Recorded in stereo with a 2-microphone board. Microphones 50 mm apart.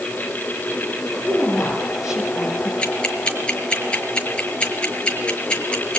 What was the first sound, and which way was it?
A woman speaking, 5° right (ahead or behind).